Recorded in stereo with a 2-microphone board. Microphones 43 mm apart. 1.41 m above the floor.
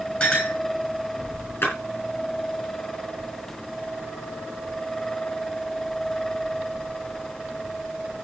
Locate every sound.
0.2 s a clink: 25° left (ahead or behind), 9.5 m
1.6 s a splash: 55° left (ahead or behind), 6.5 m